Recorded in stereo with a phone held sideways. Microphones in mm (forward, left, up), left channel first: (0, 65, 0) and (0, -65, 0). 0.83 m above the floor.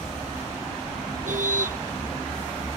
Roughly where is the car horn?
Right.